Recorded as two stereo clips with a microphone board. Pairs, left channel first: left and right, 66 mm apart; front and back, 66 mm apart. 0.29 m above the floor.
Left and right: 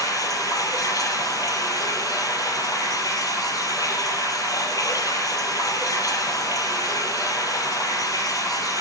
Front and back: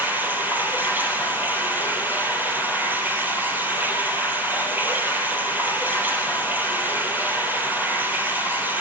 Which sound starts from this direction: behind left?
Running water, at 0.0 s.